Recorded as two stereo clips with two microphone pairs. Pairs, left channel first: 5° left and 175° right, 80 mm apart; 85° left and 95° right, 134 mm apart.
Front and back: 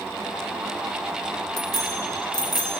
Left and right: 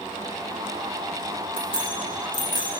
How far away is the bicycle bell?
About 4 m.